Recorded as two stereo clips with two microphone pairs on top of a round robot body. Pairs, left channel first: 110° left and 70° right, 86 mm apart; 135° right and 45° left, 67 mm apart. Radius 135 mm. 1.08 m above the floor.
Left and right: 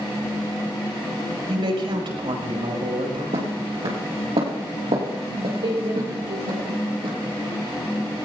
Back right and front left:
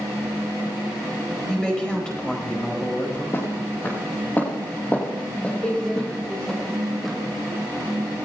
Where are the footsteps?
80° right, 3.5 m; by 7.2 s 45° right, 4 m.